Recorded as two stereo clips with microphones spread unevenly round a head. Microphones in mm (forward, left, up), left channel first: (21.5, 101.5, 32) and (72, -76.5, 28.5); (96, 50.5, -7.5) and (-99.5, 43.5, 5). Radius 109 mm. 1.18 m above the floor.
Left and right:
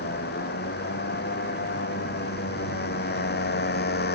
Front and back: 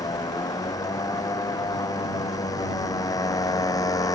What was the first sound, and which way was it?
A motorcycle, 75° left.